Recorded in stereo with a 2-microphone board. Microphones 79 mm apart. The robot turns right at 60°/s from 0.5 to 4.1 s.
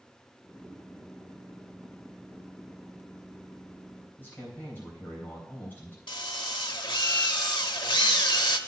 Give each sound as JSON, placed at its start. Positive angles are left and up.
{"t": 4.2, "sound": "a man speaking", "side_deg": 25, "distance_m": 3.5}
{"t": 6.1, "sound": "a drill", "side_deg": 75, "distance_m": 0.9}